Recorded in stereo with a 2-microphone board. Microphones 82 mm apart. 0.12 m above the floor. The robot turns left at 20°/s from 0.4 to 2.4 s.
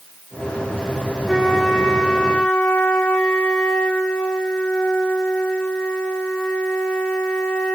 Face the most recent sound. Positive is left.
turn(degrees=15)  # may be behind; listen again after turning